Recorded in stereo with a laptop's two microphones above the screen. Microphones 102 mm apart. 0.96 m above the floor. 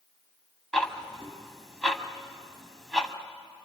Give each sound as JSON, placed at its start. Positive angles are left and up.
{"t": 0.7, "sound": "ticking", "side_deg": 5, "distance_m": 1.9}